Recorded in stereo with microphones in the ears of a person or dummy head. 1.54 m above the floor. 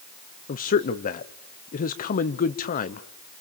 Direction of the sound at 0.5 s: 35° left (ahead or behind).